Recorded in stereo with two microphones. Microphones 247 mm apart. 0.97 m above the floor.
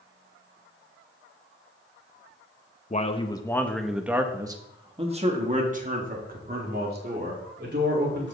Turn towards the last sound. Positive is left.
turn(degrees=-45)  # may be behind; listen again after turning